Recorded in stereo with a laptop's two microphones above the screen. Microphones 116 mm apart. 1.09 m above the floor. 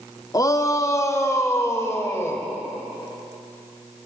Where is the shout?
30° left (ahead or behind), 2.5 m; by 2.4 s 20° left (ahead or behind), 5.5 m.